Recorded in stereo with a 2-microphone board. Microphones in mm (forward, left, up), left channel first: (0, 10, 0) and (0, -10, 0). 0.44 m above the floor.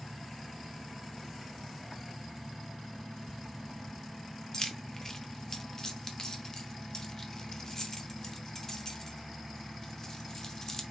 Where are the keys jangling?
25° left (ahead or behind), 0.6 m.